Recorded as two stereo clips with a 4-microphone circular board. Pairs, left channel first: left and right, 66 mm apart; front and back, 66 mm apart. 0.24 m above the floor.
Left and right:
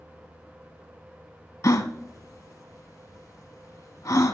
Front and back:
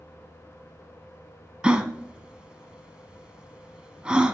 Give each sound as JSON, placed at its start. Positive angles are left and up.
{"t": 1.6, "sound": "a gasp", "azimuth_deg": 110, "distance_m": 0.7}